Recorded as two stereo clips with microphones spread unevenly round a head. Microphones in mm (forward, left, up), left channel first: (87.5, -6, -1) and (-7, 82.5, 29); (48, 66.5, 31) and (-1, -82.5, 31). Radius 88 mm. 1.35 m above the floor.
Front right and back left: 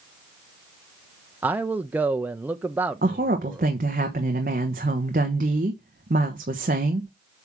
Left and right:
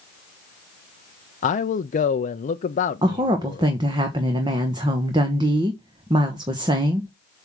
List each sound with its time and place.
1.4 s a man speaking: 50° left, 0.6 m
3.0 s a woman speaking: 175° right, 1.0 m